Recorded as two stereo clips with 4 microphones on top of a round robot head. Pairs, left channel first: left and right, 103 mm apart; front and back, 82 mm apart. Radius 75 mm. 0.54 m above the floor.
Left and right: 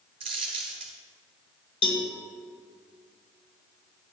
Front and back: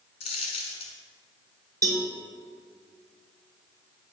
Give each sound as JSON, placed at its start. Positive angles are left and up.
{"t": 0.2, "sound": "a dropped coin", "azimuth_deg": -35, "distance_m": 1.1}
{"t": 1.8, "sound": "a cowbell", "azimuth_deg": 125, "distance_m": 1.9}